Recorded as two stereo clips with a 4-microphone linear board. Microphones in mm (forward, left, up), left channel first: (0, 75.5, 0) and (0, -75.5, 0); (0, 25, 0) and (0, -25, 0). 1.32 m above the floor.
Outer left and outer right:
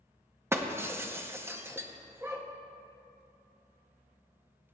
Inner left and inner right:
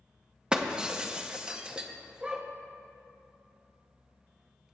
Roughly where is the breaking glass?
Centre.